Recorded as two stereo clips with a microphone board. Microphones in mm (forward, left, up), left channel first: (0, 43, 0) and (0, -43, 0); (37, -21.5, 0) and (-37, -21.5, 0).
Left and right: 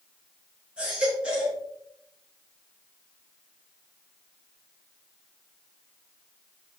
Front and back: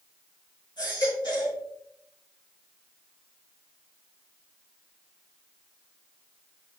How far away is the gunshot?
I don't hear a gunshot.